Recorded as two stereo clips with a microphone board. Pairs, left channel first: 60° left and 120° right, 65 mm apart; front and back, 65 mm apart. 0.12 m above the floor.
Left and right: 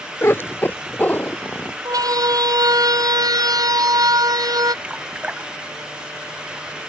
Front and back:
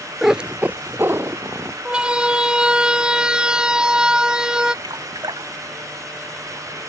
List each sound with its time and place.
0.2 s a cat meowing: 95° left; by 1.8 s 125° left
1.9 s a siren: 105° right; by 4.7 s 100° right
4.8 s dripping: 165° left